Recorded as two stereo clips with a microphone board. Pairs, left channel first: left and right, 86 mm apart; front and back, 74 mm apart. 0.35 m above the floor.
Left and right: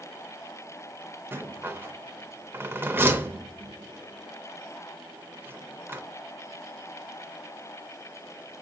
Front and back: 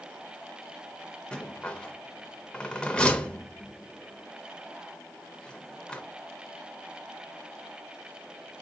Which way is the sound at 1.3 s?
60° right.